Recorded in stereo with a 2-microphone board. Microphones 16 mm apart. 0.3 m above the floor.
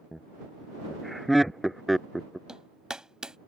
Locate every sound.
0.1 s laughter: 10° left (ahead or behind); by 2.4 s 5° right (ahead or behind)
2.5 s hammering: 55° right (ahead or behind)